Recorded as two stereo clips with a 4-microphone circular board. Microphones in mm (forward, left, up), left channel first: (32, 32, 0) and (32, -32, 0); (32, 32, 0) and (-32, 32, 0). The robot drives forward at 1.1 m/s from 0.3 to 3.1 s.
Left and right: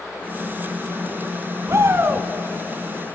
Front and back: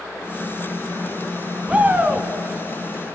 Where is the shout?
110° right, 1.5 m; by 2.3 s 135° right, 1.8 m.